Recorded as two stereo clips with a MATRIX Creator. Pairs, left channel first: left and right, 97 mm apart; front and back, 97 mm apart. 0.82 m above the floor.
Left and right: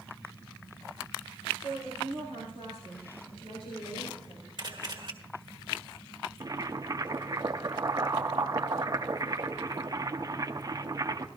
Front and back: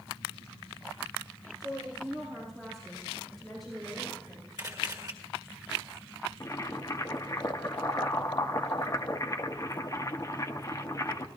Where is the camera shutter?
130° right, 1.6 m.